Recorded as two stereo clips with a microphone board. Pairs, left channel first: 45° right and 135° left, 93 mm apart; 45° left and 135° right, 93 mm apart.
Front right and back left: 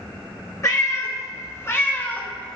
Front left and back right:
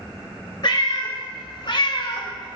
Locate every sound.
0.6 s a cat meowing: 10° left, 1.7 m; by 2.6 s 35° left, 0.7 m